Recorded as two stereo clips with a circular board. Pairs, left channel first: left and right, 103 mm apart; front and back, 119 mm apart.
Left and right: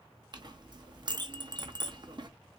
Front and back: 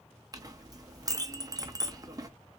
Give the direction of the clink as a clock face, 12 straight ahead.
4 o'clock.